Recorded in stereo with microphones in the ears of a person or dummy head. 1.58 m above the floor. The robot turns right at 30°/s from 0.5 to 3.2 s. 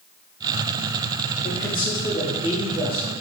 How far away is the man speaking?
About 0.5 m.